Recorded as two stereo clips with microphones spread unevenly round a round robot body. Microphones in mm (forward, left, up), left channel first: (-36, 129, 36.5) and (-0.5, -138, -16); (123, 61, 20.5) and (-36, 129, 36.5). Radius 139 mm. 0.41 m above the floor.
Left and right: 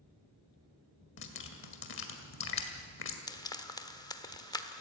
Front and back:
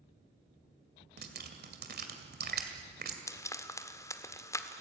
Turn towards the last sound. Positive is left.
turn(degrees=15)